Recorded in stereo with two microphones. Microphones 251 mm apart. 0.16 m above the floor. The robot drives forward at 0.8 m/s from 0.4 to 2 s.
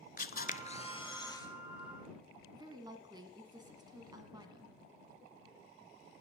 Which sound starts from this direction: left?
A camera shutter, at 0.2 s.